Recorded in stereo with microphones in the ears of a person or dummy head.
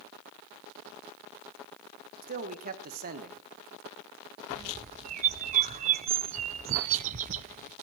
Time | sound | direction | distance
2.2 | a man speaking | 40° right (ahead or behind) | 1.1 m
4.5 | a bird | 40° right (ahead or behind) | 0.5 m